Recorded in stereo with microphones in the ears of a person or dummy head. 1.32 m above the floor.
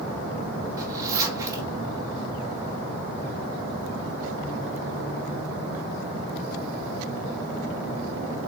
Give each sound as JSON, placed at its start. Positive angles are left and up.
{"t": 0.8, "sound": "a zipper", "side_deg": -20, "distance_m": 2.0}